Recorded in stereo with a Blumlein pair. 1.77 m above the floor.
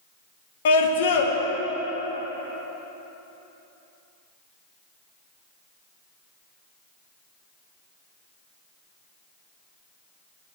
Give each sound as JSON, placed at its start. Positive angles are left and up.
{"t": 0.7, "sound": "a scream", "azimuth_deg": 55, "distance_m": 1.3}